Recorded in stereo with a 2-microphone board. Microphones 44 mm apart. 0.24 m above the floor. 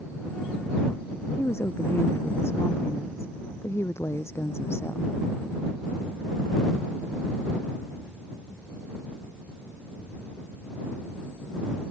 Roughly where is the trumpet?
No trumpet in this recording.